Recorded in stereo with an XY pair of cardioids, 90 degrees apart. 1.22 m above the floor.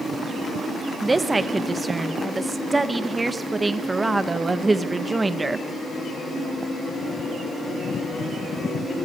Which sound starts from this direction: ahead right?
A woman speaking, at 1.0 s.